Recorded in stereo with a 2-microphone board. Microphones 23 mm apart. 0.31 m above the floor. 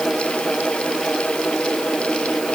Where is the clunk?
I don't hear a clunk.